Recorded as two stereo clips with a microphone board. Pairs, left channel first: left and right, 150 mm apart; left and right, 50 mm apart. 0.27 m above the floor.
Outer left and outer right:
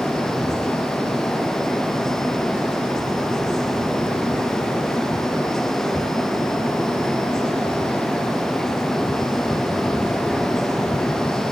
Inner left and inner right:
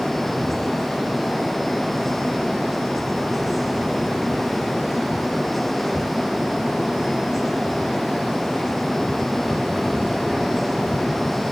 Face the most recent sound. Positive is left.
No sound to turn to.